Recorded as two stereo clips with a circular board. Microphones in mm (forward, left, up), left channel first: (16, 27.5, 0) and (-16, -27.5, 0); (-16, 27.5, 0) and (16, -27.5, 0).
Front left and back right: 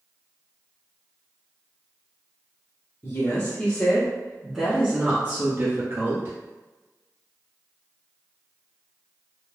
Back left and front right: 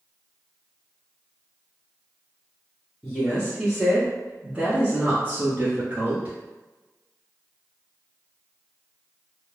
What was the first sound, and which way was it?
A woman speaking, 40° left.